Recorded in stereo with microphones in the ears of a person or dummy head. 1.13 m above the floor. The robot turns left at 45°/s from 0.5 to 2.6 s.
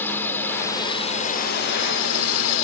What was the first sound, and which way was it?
A drone, 170° left.